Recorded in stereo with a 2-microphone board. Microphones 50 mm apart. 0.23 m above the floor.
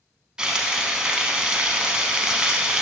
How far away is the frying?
About 0.7 m.